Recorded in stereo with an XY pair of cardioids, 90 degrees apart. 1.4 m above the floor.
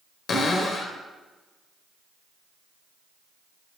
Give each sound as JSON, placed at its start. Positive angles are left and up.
{"t": 0.3, "sound": "a cupboard door", "azimuth_deg": 55, "distance_m": 1.0}